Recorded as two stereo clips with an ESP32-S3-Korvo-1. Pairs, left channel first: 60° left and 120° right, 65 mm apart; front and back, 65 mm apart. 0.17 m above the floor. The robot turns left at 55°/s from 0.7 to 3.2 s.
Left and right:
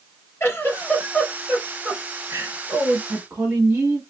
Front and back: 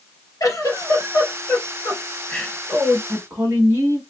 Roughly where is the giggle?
Ahead.